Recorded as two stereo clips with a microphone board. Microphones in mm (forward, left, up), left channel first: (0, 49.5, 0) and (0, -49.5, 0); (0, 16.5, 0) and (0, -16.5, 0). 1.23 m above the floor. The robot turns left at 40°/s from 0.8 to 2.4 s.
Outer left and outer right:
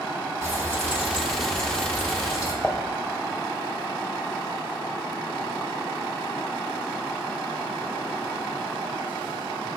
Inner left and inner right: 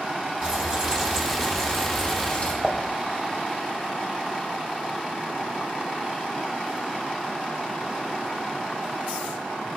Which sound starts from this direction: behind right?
Frying, at 0.4 s.